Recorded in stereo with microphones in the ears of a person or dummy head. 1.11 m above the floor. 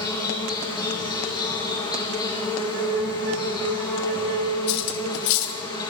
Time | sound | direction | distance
0.0 | an insect | 20° left (ahead or behind) | 3 m
2.5 | a flute | 60° right (ahead or behind) | 1.5 m
4.7 | cutlery clinking | 70° left (ahead or behind) | 1.1 m